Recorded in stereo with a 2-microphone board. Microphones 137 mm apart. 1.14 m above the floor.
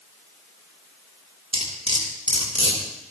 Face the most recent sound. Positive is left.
turn(degrees=-45)  # may be behind; listen again after turning